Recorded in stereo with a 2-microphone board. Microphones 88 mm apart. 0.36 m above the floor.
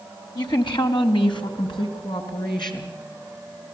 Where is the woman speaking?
60° left (ahead or behind), 2 m.